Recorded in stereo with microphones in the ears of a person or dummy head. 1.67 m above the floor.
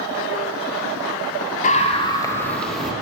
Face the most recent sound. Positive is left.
turn(degrees=-5)  # may be behind; listen again after turning